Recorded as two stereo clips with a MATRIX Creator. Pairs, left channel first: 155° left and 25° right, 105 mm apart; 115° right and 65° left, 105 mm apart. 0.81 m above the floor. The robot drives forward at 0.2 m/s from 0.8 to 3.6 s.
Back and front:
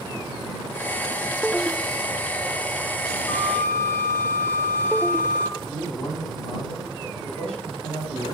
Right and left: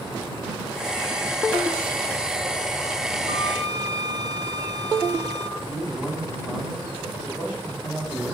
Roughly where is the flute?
Left.